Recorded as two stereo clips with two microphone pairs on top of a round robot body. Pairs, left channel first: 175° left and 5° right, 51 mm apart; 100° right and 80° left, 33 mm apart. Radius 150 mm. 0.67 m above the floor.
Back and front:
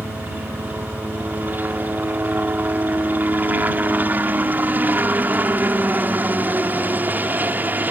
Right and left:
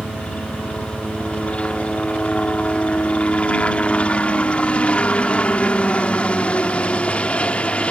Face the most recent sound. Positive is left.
turn(degrees=-55)